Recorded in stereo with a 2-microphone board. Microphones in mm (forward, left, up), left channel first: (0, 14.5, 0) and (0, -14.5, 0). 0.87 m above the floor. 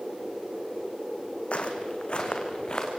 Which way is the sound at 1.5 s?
50° left (ahead or behind).